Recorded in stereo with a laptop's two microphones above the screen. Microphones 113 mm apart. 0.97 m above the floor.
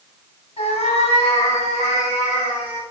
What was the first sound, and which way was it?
A cat meowing, 65° left (ahead or behind).